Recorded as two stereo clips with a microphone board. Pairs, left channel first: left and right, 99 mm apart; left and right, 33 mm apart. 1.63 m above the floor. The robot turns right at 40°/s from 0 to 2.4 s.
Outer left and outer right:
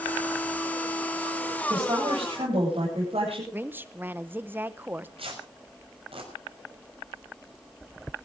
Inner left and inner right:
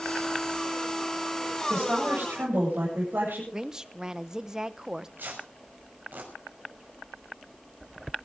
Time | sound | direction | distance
1.7 | a woman speaking | 70° right (ahead or behind) | 9 m
3.5 | a woman speaking | 20° right (ahead or behind) | 1.0 m
5.2 | tearing paper | 70° right (ahead or behind) | 6 m